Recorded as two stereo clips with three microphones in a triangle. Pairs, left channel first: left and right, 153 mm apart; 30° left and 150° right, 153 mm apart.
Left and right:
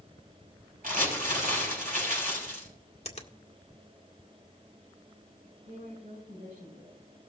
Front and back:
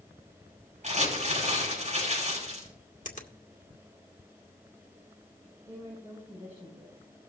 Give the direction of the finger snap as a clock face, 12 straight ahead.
10 o'clock.